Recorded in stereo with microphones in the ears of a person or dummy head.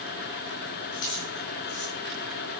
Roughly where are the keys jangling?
Left.